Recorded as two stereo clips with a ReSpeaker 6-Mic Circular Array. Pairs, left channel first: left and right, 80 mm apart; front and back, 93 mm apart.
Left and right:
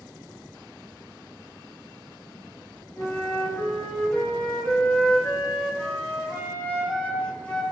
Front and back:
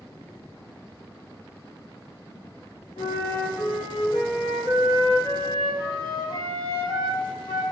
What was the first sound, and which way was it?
A flute, 20° left.